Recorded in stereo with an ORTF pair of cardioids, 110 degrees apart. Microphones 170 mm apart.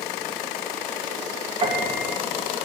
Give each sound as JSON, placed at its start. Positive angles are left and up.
{"t": 1.6, "sound": "a piano", "azimuth_deg": -30, "distance_m": 2.0}